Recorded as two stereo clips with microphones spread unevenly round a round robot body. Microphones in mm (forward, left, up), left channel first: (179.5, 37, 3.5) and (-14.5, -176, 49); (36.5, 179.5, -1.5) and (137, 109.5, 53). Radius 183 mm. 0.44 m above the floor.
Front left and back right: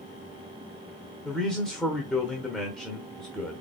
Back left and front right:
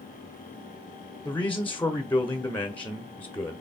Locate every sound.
1.2 s a man speaking: 125° left, 0.9 m